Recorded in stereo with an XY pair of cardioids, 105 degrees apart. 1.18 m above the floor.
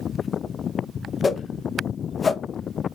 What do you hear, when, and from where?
1.2 s a whoosh: 25° left, 0.6 m